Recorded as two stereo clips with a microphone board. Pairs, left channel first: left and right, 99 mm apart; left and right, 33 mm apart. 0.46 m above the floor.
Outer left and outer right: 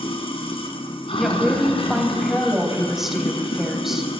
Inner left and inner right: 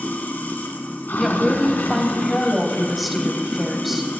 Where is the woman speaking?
5° right (ahead or behind), 3 m.